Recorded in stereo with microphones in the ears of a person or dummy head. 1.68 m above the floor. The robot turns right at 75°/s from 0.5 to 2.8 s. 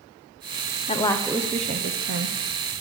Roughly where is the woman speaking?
Behind left.